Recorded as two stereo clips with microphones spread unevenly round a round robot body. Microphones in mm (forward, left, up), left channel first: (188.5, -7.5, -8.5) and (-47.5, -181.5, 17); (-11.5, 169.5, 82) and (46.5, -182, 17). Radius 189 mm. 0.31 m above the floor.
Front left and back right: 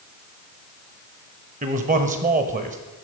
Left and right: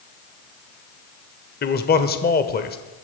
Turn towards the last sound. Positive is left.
turn(degrees=160)